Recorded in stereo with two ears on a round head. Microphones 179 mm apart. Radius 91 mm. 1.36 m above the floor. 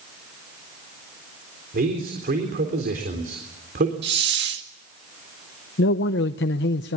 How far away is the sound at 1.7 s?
About 4 m.